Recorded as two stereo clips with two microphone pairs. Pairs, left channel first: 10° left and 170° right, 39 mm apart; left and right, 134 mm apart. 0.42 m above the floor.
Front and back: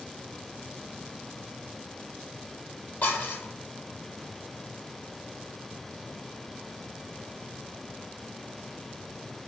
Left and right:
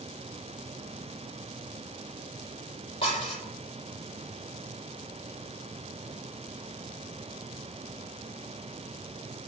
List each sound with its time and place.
3.0 s dishes clattering: 40° left, 7.5 m